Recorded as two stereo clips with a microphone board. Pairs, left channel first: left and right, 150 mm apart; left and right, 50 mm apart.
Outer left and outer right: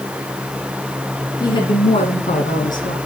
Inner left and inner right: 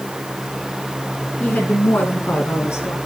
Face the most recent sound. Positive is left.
turn(degrees=65)  # may be behind; listen again after turning